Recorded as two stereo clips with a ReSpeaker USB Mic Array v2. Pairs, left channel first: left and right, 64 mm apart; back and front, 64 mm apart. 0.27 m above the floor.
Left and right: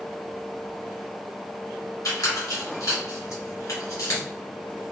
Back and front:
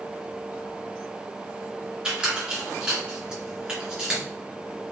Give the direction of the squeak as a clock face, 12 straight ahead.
10 o'clock.